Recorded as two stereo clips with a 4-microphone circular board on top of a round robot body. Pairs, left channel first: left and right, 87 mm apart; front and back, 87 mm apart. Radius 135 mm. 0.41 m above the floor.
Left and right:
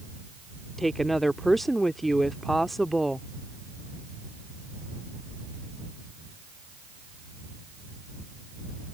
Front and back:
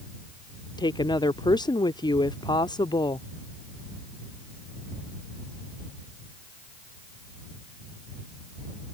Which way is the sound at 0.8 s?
5° left.